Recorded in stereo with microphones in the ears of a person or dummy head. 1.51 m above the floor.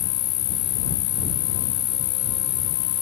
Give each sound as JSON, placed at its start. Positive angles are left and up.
{"t": 0.0, "sound": "an insect", "side_deg": 50}